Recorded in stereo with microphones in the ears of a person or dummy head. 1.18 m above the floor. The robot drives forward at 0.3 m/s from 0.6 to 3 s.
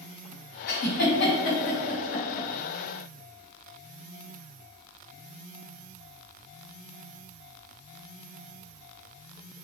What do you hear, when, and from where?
0.7 s a giggle: 50° left (ahead or behind), 1.5 m; by 2.5 s 45° left (ahead or behind), 1.7 m